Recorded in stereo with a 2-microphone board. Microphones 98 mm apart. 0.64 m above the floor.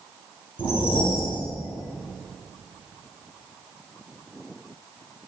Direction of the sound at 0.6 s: 60° left (ahead or behind).